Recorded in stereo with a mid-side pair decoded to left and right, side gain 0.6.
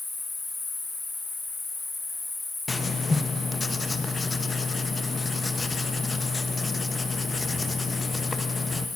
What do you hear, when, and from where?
0.0 s an insect: 25° left, 4.5 m
2.7 s writing: 20° left, 0.6 m